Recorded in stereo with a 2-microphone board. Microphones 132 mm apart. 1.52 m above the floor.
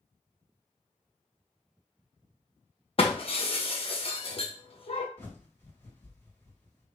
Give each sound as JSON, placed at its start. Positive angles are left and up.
{"t": 3.0, "sound": "breaking glass", "side_deg": 45, "distance_m": 0.9}
{"t": 5.2, "sound": "a bird", "side_deg": 20, "distance_m": 1.6}